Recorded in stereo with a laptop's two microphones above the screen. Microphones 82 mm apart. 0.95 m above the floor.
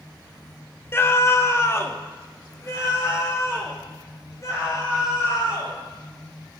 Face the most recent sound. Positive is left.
turn(degrees=35)  # may be behind; listen again after turning